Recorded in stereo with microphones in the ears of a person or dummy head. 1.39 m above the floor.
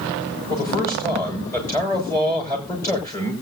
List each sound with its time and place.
0.5 s a man speaking: 20° left (ahead or behind), 6 m